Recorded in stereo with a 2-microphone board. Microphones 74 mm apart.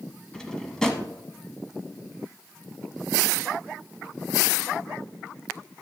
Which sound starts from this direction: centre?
A drawer, at 0.3 s.